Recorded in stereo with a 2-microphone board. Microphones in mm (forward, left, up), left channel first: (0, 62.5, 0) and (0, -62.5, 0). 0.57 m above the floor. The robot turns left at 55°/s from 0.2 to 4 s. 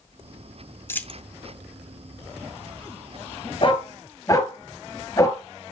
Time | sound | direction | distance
0.9 | a dropped coin | 20° left (ahead or behind) | 0.6 m
3.6 | a dog barking | 45° left (ahead or behind) | 2 m